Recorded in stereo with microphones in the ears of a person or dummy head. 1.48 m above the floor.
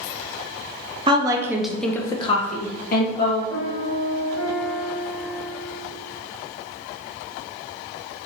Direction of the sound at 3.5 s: 5° left (ahead or behind).